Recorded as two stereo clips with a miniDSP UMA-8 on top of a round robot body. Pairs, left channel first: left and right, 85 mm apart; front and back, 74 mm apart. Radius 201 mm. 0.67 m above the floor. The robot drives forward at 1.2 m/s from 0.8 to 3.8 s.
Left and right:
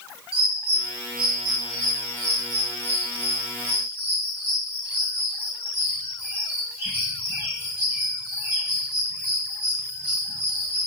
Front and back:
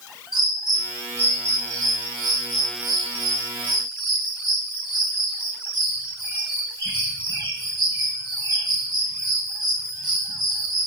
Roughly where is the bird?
Right.